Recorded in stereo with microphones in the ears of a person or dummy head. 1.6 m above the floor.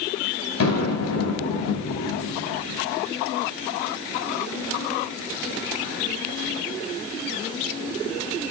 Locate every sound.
0.6 s an explosion: 80° left, 5.5 m